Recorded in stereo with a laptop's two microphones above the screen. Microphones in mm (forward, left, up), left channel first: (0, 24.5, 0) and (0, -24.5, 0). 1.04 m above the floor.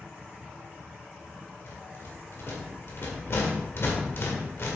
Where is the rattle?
55° left (ahead or behind), 1.8 m.